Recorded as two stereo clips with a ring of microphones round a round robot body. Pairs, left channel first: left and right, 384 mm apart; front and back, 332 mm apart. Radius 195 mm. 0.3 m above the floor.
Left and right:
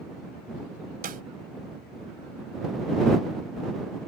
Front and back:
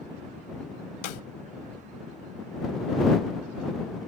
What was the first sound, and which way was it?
A snare drum, 25° right.